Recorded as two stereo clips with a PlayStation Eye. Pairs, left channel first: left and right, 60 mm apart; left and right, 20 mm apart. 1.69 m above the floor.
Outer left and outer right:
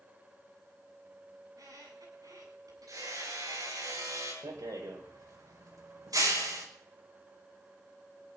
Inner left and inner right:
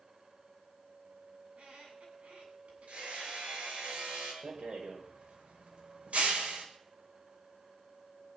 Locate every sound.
1.4 s a squeak: 80° right, 8.5 m
2.9 s hammering: 75° right (ahead or behind), 9 m
4.4 s a rattle: 80° right, 5 m